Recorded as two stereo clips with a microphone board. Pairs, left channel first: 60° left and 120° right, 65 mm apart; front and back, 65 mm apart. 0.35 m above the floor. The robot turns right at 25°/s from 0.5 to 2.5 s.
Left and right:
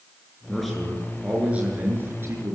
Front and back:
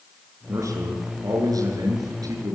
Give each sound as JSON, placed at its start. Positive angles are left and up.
{"t": 0.5, "sound": "a man speaking", "azimuth_deg": 145, "distance_m": 6.0}